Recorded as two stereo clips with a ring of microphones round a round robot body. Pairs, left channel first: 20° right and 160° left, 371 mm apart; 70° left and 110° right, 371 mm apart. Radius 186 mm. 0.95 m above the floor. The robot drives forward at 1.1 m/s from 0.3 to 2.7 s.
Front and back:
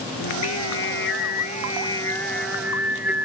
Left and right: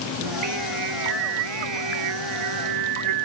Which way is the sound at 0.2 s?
70° right.